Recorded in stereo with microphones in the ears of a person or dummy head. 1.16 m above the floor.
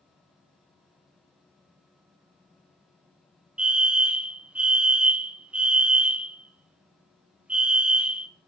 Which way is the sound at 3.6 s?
5° right (ahead or behind).